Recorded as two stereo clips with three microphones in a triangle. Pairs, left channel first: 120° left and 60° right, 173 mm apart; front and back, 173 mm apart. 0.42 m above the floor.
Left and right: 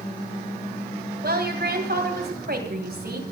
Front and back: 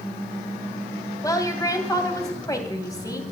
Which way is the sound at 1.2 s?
70° right.